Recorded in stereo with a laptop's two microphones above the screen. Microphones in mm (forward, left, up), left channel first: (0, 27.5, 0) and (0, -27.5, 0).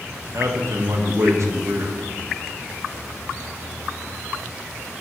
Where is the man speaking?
65° right (ahead or behind), 1.3 m.